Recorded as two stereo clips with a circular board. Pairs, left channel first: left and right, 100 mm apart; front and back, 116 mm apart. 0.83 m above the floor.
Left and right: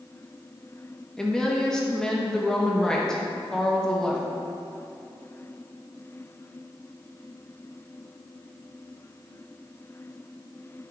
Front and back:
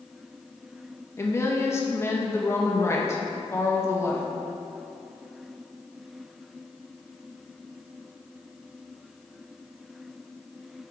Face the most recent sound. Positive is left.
turn(degrees=15)